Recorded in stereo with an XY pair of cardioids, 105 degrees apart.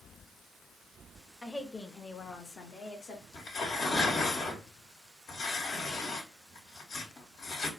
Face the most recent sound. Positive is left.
turn(degrees=60)